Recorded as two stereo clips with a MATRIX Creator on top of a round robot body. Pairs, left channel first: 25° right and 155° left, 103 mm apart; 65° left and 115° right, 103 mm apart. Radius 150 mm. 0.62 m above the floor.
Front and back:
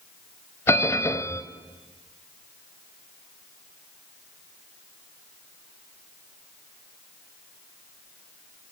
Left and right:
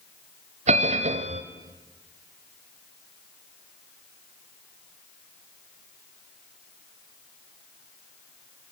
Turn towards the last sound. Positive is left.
turn(degrees=-90)